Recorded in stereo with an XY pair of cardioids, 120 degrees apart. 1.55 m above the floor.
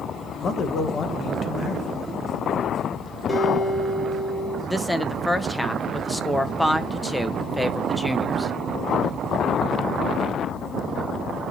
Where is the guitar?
Straight ahead, 6 m.